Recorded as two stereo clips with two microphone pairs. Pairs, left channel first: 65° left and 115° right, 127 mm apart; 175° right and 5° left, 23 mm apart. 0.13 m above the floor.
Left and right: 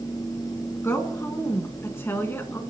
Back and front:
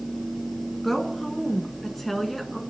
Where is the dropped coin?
No dropped coin in this recording.